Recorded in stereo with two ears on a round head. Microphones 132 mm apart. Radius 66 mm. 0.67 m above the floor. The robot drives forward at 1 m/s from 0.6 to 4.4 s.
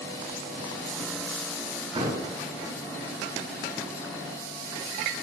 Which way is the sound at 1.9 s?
35° right (ahead or behind).